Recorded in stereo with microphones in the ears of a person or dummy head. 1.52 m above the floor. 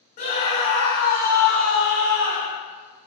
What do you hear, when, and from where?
0.2 s a scream: 55° left (ahead or behind), 1.0 m; by 2.6 s 20° right (ahead or behind), 1.1 m